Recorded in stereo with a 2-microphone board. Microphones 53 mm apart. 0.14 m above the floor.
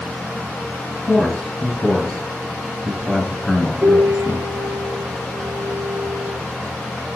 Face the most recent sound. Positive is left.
turn(degrees=-60)  # may be behind; listen again after turning